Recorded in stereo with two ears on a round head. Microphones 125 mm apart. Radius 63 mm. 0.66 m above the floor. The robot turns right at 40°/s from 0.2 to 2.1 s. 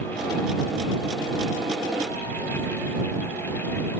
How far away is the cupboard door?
No cupboard door in this recording.